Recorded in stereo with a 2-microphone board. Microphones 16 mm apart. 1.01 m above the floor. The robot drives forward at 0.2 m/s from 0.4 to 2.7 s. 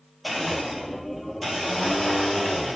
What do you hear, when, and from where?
0.2 s a blender: 5° right (ahead or behind), 1.0 m